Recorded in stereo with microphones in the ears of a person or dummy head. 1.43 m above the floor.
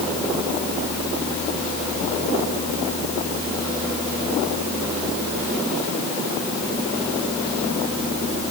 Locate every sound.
Only background noise.